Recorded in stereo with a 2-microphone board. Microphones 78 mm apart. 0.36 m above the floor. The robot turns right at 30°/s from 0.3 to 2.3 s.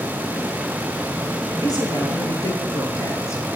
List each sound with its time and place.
1.6 s a woman speaking: 60° left (ahead or behind), 7 m; by 3.4 s 40° left (ahead or behind), 7 m